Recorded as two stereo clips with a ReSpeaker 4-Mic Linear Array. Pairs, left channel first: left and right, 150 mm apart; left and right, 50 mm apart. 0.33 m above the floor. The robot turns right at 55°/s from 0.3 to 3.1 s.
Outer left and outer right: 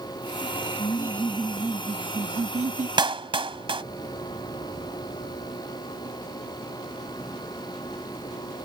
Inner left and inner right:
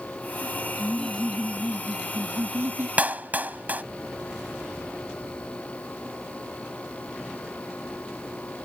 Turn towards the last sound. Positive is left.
turn(degrees=-35)  # may be behind; listen again after turning